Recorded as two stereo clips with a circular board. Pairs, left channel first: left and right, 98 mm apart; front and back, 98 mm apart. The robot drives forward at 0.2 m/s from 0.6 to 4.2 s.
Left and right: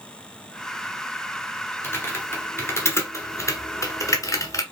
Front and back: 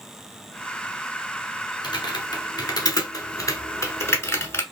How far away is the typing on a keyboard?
About 1.1 m.